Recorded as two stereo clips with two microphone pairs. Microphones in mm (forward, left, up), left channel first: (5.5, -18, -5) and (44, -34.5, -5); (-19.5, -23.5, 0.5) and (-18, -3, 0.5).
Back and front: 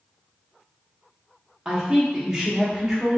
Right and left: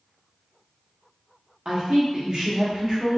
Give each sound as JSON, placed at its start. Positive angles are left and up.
{"t": 1.6, "sound": "a woman speaking", "azimuth_deg": 50, "distance_m": 0.9}